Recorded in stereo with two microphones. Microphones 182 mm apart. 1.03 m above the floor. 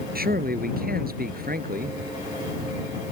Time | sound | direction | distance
0.1 | a man speaking | 55° right (ahead or behind) | ?